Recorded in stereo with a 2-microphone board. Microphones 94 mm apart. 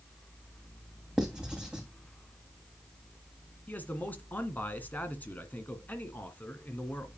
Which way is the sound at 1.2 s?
10° right (ahead or behind).